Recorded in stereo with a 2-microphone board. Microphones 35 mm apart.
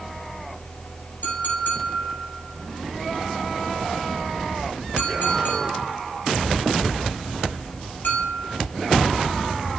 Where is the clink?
80° left, 5.5 m.